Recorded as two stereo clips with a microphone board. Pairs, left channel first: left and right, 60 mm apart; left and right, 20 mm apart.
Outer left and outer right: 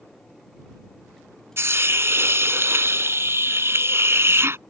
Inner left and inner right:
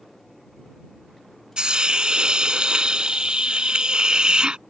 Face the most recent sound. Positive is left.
turn(degrees=-45)  # may be behind; listen again after turning